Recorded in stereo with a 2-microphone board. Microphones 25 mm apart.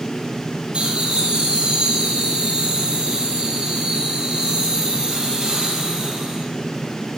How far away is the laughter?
About 5.5 m.